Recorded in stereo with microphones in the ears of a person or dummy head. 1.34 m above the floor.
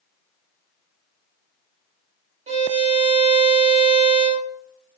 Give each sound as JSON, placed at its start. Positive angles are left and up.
{"t": 2.5, "sound": "a violin", "side_deg": -35, "distance_m": 0.8}